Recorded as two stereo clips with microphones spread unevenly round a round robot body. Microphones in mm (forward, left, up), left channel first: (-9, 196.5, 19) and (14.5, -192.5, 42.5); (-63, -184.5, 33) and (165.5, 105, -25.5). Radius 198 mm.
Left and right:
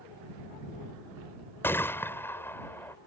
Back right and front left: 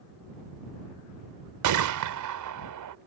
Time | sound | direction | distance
1.6 | a gunshot | 10° left | ?